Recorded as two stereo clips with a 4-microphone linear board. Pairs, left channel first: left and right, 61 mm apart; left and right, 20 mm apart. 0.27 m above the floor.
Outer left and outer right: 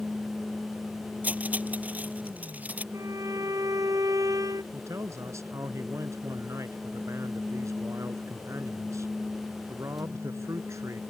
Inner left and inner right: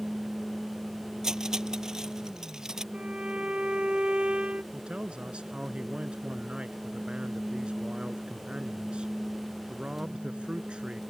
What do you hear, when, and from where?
1.2 s cutlery clinking: 25° right (ahead or behind)
2.9 s a violin: 70° right (ahead or behind)
4.7 s a man speaking: 60° right (ahead or behind)